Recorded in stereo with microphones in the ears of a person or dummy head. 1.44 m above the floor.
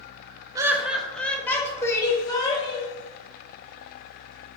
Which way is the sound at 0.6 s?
15° right (ahead or behind).